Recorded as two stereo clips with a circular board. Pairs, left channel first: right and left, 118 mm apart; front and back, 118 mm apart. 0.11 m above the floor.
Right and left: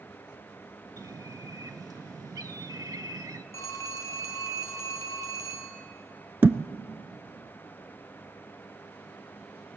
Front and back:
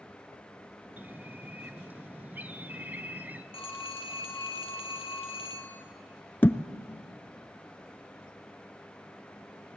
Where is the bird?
120° left, 0.6 m.